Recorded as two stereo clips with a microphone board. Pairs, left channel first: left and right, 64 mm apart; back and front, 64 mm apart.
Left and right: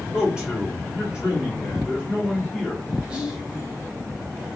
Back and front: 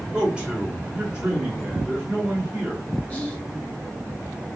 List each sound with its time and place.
0.1 s a man speaking: 45° right, 1.3 m
3.1 s whispering: 140° right, 0.9 m